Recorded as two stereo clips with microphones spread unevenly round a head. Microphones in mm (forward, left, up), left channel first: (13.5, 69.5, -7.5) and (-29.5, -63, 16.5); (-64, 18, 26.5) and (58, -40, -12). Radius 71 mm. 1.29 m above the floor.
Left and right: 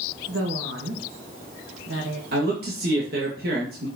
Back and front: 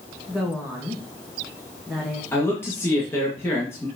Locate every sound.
0.3 s a woman speaking: 110° right, 1.7 m
2.3 s a man speaking: 130° right, 2 m